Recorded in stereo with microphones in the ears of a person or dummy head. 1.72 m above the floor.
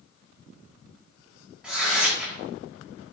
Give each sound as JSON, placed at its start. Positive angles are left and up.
{"t": 1.6, "sound": "tearing paper", "side_deg": -10, "distance_m": 3.0}